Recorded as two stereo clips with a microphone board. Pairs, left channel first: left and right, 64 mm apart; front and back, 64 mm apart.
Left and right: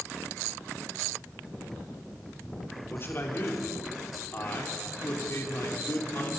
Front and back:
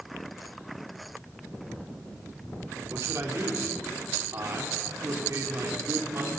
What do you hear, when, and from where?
2.9 s a man speaking: 140° left, 3.5 m